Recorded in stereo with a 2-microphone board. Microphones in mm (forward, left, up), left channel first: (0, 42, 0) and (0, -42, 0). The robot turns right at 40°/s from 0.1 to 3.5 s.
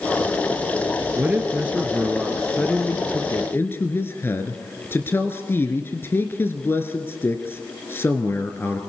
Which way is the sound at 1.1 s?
45° right.